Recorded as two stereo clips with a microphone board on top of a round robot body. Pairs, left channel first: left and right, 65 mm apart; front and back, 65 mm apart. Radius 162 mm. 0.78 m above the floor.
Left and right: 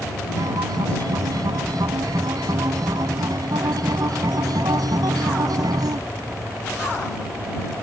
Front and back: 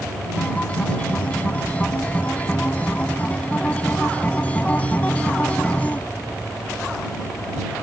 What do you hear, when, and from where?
0.4 s a guitar: 70° right